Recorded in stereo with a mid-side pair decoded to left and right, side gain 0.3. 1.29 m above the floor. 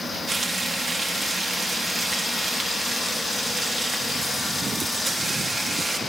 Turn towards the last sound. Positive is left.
turn(degrees=-40)